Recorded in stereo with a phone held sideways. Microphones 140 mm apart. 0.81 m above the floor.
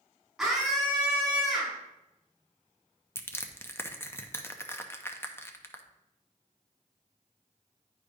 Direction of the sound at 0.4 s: 5° right (ahead or behind).